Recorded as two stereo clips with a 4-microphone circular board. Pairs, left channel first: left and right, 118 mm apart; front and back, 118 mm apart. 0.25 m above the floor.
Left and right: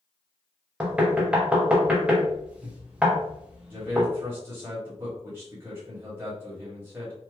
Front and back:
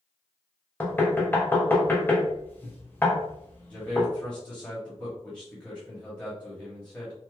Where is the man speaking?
65° right, 0.9 m.